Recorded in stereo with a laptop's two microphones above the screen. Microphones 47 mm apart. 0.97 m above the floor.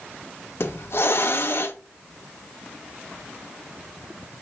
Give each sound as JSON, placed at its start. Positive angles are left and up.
{"t": 0.6, "sound": "a hiss", "side_deg": 55, "distance_m": 0.9}